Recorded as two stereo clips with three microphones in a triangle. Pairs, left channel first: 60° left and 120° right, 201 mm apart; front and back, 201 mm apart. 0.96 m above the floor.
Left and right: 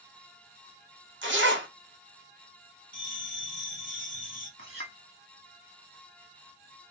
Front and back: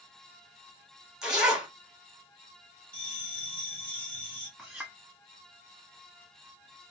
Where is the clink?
90° right, 1.6 m.